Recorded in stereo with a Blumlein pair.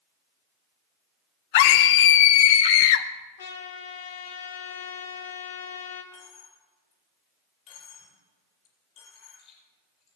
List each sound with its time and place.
1.5 s a scream: 55° left, 0.9 m
3.4 s a trumpet: 65° left, 1.7 m
6.1 s a dropped coin: 30° left, 5.5 m